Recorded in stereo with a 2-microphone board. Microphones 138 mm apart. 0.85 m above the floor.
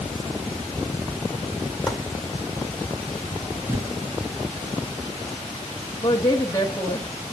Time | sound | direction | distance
1.9 | chopping | centre (ahead or behind) | 2 m
3.7 | a thud | 20° right (ahead or behind) | 1.6 m
6.0 | a woman speaking | 25° left (ahead or behind) | 0.9 m